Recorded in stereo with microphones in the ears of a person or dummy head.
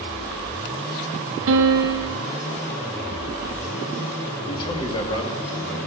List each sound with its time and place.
1.5 s a piano: 75° right (ahead or behind), 1.1 m
4.5 s a man speaking: 30° left (ahead or behind), 2.5 m